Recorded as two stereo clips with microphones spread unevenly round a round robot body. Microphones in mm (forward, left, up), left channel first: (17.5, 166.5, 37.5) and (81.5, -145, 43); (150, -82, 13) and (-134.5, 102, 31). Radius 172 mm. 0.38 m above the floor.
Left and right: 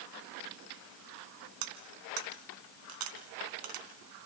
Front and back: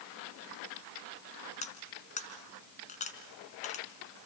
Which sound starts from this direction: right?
Cutlery clinking, at 1.6 s.